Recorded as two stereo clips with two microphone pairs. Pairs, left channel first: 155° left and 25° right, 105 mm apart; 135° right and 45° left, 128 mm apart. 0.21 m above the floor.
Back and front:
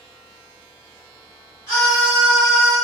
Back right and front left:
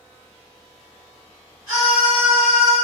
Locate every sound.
1.7 s a scream: 105° left, 1.9 m; by 2.8 s 40° left, 1.7 m